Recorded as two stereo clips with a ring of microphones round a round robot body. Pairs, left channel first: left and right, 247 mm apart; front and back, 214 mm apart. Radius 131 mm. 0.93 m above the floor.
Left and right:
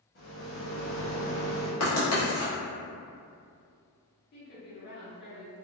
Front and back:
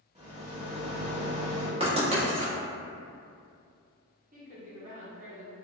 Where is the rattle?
125° left, 1.2 m.